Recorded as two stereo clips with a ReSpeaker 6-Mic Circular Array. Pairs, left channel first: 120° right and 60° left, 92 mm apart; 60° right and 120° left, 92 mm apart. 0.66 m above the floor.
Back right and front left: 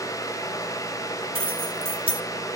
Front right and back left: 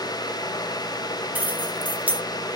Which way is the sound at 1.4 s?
50° left.